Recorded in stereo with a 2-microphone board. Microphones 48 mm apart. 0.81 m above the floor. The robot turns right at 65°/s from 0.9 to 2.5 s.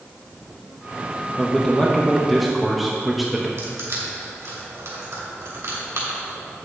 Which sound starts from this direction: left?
A man speaking, at 1.4 s.